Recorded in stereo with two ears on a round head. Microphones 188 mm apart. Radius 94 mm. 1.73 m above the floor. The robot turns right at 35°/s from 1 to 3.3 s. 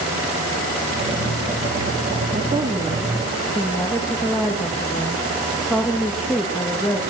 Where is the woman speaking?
30° right, 2.5 m; by 7.0 s straight ahead, 2.5 m.